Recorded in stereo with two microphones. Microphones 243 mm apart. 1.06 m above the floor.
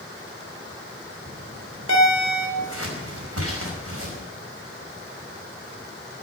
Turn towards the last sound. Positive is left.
turn(degrees=-75)  # may be behind; listen again after turning